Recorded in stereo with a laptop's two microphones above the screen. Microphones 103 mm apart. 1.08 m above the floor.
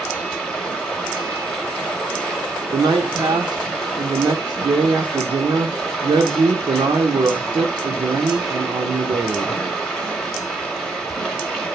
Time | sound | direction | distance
0.0 | running water | 5° left (ahead or behind) | 0.9 m
2.7 | a man speaking | 40° right (ahead or behind) | 0.5 m